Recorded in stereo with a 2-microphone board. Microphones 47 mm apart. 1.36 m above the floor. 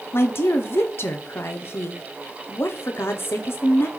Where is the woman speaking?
60° left (ahead or behind), 0.6 m.